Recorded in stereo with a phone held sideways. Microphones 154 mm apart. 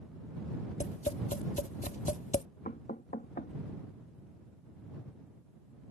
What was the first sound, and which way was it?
Tapping, 55° left (ahead or behind).